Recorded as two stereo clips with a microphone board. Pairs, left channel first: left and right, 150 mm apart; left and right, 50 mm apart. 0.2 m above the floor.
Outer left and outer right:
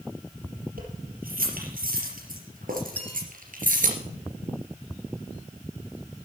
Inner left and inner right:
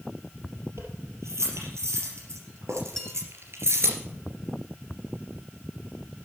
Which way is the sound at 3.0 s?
10° left (ahead or behind).